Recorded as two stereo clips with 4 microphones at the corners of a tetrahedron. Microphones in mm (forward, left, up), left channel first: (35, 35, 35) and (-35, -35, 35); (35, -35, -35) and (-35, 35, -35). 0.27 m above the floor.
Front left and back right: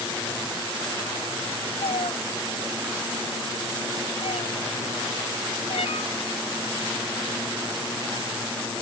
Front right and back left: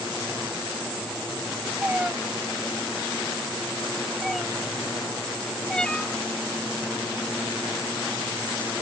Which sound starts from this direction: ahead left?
A cat meowing, at 1.8 s.